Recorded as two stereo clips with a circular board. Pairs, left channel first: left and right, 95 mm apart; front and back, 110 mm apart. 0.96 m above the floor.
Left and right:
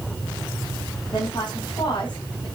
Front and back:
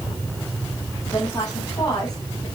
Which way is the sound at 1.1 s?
50° left.